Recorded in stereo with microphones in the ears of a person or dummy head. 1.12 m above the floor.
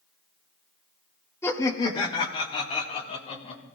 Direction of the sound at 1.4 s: 15° left (ahead or behind).